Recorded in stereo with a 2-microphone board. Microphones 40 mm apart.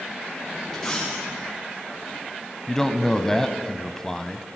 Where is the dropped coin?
15° left (ahead or behind), 8.5 m.